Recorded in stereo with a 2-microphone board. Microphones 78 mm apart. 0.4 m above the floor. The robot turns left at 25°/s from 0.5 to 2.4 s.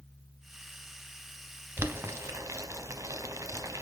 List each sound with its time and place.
1.8 s boiling: 30° right (ahead or behind), 0.6 m; by 3.8 s 45° right (ahead or behind), 0.6 m